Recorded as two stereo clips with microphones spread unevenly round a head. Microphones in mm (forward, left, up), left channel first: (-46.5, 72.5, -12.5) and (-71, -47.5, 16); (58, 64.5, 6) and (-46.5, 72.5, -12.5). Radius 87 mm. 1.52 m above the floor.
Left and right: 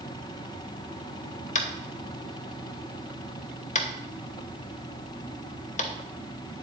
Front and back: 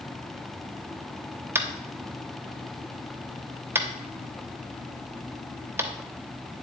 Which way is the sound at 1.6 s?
105° left.